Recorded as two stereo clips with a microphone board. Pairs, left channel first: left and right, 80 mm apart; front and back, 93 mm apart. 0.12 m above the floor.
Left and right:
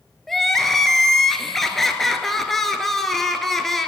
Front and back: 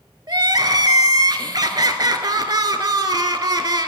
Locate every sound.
0.3 s crying: 175° left, 0.5 m